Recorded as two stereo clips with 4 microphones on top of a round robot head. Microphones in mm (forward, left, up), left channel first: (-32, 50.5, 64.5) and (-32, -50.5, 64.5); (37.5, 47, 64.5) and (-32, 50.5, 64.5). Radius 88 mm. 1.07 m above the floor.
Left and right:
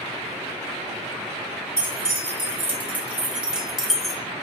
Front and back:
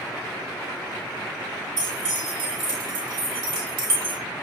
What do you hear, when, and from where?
1.8 s keys jangling: 150° right, 3 m; by 4.2 s straight behind, 1.8 m